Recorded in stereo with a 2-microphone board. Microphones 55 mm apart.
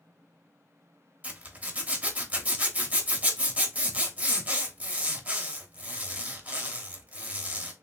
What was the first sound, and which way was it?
A zipper, 25° right (ahead or behind).